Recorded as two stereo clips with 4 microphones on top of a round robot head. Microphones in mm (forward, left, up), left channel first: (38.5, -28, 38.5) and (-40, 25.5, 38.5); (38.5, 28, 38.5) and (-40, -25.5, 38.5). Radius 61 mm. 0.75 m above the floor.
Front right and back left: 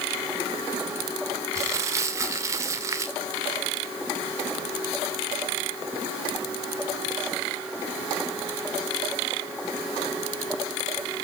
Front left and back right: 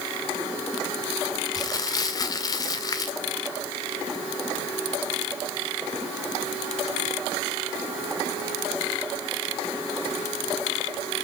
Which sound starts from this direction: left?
Crumpling, at 1.6 s.